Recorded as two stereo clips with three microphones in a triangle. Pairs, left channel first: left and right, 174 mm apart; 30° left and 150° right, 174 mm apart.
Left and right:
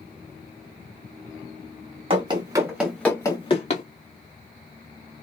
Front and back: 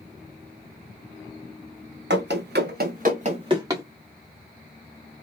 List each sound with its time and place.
2.1 s running footsteps: 150° right, 1.2 m; by 3.8 s 135° left, 1.1 m